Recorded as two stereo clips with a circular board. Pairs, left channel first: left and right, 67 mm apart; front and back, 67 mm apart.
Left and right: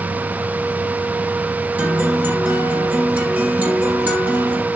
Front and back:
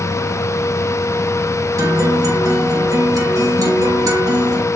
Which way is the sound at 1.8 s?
155° right.